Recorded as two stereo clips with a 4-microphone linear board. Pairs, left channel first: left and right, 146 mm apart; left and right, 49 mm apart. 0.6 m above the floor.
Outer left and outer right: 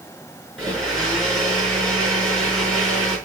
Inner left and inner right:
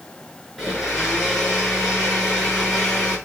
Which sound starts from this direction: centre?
A blender, at 0.6 s.